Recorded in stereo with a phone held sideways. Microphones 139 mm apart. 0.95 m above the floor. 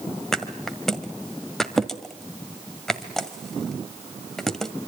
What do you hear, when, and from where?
0.3 s a thud: 5° left (ahead or behind), 1.8 m